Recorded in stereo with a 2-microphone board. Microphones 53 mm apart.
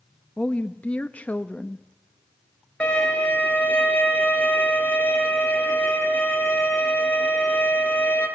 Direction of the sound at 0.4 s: 30° left (ahead or behind).